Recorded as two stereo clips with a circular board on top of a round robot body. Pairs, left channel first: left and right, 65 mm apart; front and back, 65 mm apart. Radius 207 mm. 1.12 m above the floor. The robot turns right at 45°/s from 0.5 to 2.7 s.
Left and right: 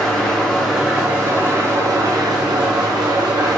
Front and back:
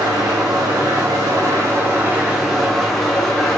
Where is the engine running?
175° left, 1.6 m; by 3.6 s 85° right, 1.6 m.